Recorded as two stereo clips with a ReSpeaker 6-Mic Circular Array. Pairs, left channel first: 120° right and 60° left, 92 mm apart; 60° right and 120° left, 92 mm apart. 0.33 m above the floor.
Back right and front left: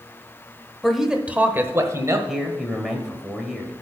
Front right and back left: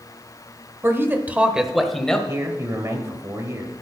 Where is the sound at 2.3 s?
145° left, 1.7 m.